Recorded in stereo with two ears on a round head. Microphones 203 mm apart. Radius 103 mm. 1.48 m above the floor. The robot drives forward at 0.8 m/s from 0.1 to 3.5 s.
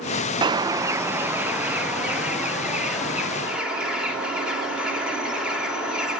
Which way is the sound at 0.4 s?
20° right (ahead or behind).